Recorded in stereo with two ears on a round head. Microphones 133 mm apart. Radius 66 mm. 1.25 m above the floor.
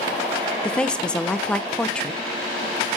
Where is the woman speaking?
5° left (ahead or behind), 0.9 m.